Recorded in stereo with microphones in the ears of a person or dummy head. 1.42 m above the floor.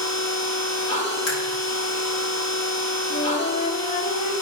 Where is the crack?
75° left (ahead or behind), 3.5 m.